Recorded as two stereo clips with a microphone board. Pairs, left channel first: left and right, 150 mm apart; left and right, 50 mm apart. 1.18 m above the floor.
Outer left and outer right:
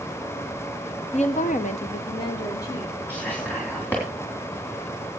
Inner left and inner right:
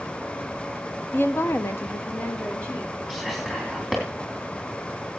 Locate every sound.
1.1 s a woman speaking: 45° left (ahead or behind), 0.9 m; by 3.0 s 20° left (ahead or behind), 2 m
3.1 s whispering: 10° left (ahead or behind), 3 m